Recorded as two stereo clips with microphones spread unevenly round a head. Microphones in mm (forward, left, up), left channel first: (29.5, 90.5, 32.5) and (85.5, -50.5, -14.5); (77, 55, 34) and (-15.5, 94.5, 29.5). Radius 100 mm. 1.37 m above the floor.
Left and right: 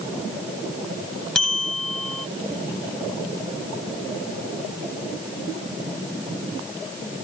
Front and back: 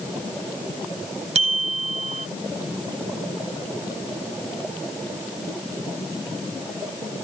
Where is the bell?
165° right.